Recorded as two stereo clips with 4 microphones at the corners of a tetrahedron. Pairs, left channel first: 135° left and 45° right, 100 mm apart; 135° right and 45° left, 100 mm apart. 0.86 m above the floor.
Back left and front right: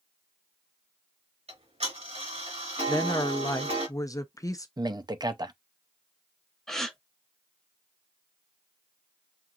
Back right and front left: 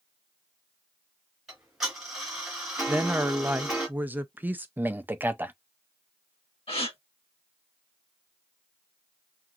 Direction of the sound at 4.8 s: 20° right.